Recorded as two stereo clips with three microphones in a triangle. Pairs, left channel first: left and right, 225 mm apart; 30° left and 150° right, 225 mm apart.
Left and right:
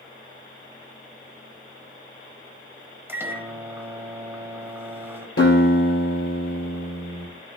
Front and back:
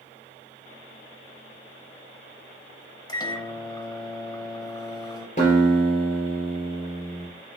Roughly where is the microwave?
Ahead.